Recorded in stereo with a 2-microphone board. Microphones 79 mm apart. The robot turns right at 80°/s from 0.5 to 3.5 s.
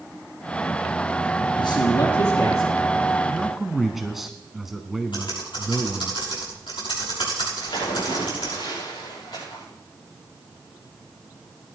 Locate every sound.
1.6 s a man speaking: 65° left, 3.5 m; by 2.7 s 155° left, 3.5 m
3.2 s a man speaking: 10° left (ahead or behind), 1.2 m; by 6.1 s 5° right (ahead or behind), 1.2 m
5.1 s typing on a keyboard: 85° left, 6.5 m
7.6 s a splash: 70° left (ahead or behind), 7 m